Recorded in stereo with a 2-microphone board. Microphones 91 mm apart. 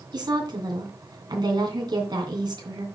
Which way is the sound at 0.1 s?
45° right (ahead or behind).